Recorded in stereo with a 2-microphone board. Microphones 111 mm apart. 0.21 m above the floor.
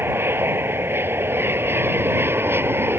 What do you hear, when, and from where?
0.0 s an aircraft: 20° right (ahead or behind)